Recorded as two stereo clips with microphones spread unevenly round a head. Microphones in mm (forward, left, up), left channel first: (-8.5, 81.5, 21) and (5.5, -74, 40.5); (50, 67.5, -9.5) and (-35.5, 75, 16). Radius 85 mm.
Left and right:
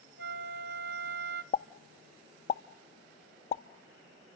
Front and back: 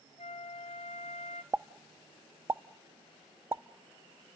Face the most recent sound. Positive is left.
turn(degrees=145)